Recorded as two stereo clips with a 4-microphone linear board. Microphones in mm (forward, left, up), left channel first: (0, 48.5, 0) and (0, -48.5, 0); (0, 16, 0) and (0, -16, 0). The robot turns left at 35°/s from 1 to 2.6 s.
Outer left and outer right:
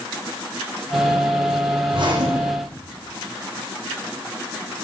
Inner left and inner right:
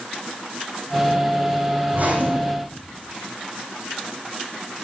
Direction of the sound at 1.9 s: 60° right (ahead or behind).